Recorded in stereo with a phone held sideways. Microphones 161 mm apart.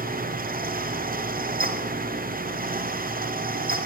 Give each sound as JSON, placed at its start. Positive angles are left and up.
{"t": 0.0, "sound": "a fan", "side_deg": -60, "distance_m": 0.8}